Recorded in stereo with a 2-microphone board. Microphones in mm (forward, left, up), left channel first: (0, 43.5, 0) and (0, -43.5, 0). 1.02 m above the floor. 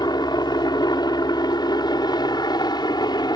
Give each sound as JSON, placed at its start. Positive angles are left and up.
{"t": 0.0, "sound": "a helicopter", "side_deg": 55}